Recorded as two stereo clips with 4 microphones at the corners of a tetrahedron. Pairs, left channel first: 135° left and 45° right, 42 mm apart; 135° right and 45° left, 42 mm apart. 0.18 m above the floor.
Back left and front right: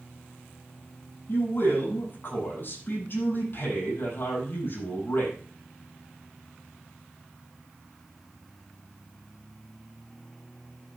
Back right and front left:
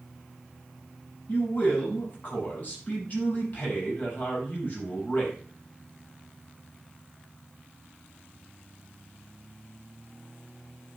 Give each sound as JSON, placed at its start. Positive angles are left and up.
{"t": 1.3, "sound": "a man speaking", "azimuth_deg": 175, "distance_m": 7.5}